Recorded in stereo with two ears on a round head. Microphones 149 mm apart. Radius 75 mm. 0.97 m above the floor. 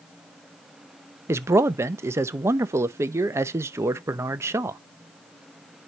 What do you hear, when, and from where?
1.3 s a man speaking: 15° right (ahead or behind), 0.6 m